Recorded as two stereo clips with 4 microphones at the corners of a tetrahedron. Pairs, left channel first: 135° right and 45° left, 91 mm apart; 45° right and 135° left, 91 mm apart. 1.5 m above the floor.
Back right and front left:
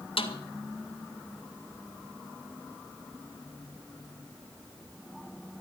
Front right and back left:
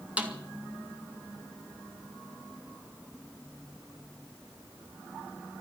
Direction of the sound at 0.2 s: 150° right.